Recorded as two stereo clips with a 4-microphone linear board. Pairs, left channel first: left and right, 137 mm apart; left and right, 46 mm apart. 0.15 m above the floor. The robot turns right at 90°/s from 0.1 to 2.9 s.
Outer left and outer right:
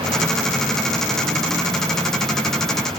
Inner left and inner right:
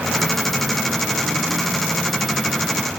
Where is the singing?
I don't hear singing.